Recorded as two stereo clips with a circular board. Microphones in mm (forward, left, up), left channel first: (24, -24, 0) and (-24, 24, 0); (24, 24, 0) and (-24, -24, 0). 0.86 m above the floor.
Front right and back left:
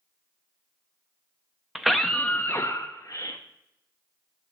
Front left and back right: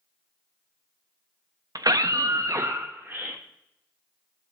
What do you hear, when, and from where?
1.8 s a scream: 145° right, 0.7 m; by 3.4 s 70° right, 1.0 m